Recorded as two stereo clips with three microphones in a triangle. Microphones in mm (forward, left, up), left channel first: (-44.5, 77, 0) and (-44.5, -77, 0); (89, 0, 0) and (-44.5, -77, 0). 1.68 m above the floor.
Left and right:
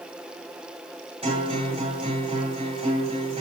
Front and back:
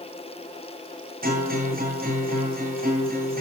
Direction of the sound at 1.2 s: 145° right.